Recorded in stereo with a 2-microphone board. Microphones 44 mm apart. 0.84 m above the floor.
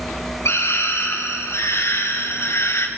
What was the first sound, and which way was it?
A scream, 80° left.